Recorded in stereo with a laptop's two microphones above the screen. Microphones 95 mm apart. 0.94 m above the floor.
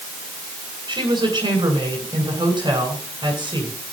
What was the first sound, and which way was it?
A woman speaking, 45° right (ahead or behind).